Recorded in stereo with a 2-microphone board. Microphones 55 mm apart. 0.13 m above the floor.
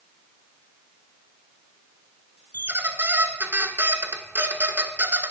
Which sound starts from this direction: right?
A squeak, at 2.5 s.